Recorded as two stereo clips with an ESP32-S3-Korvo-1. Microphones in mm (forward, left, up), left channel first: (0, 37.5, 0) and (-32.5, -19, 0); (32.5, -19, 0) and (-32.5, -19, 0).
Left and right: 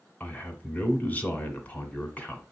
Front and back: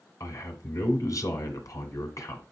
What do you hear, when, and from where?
0.2 s a man speaking: 5° left, 1.9 m